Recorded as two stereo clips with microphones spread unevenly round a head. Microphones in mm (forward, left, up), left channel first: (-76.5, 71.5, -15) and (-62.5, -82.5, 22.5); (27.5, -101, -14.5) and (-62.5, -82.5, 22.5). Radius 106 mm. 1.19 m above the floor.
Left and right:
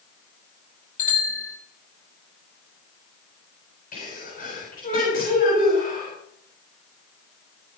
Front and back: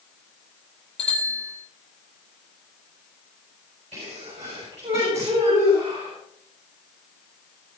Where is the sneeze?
130° left, 7.5 m.